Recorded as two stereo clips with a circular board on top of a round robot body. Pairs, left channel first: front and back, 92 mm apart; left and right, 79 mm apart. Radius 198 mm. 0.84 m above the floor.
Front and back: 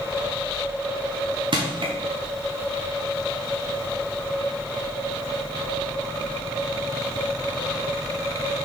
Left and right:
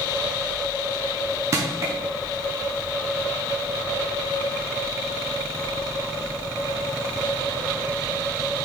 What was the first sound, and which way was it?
Crushing, 145° right.